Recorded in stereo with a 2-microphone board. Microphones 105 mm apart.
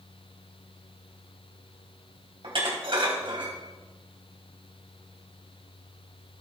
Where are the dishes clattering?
55° right (ahead or behind), 2.5 m.